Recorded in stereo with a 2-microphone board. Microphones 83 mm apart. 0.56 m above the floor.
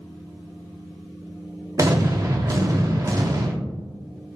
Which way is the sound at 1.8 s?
40° right (ahead or behind).